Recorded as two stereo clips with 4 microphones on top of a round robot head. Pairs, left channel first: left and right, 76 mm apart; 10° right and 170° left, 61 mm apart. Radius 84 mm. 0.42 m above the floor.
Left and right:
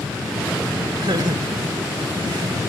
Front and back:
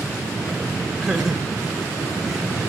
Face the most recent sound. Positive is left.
turn(degrees=-100)